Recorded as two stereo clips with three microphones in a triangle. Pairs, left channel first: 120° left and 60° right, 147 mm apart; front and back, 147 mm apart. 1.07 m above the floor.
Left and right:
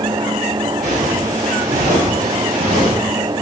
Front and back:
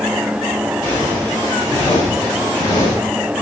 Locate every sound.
0.8 s footsteps: 65° right, 9 m; by 2.9 s 60° right, 10.5 m